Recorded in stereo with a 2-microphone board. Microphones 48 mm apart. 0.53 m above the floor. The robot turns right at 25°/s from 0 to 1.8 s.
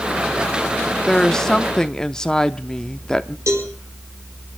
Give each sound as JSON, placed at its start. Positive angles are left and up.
{"t": 1.1, "sound": "a woman speaking", "side_deg": 10, "distance_m": 0.6}
{"t": 3.5, "sound": "a cowbell", "side_deg": -75, "distance_m": 4.0}